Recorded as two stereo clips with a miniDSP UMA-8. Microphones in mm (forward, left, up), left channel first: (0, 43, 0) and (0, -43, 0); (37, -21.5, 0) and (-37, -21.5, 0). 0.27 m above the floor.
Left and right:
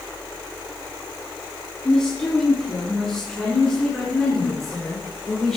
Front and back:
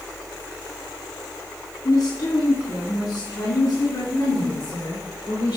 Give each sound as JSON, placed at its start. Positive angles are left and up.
{"t": 1.9, "sound": "a woman speaking", "azimuth_deg": 10, "distance_m": 2.5}